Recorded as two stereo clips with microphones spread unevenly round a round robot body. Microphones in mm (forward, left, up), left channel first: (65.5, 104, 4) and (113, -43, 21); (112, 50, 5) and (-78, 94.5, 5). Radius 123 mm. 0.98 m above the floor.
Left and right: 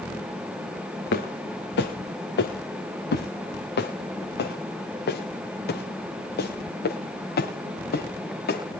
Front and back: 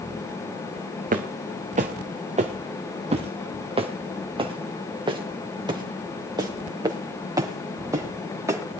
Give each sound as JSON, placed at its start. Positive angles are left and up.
{"t": 1.1, "sound": "footsteps", "azimuth_deg": 120, "distance_m": 4.0}